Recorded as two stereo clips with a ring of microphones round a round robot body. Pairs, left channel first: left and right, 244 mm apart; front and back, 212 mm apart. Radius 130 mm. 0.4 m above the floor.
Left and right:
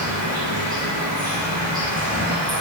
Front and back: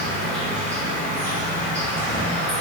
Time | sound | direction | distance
0.0 | an insect | 80° right | 1.1 m